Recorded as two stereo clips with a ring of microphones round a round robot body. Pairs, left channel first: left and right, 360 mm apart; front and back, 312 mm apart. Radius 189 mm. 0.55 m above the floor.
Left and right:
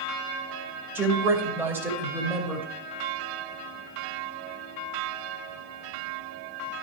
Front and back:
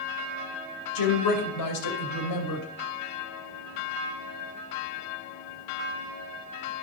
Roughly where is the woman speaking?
Ahead.